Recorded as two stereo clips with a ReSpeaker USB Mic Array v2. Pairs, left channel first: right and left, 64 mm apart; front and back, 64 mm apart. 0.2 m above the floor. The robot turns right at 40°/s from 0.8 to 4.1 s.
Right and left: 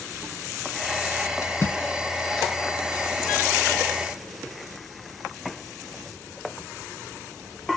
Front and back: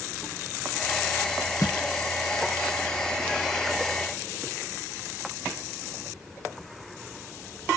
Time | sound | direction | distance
1.4 | a splash | 45° right | 0.8 m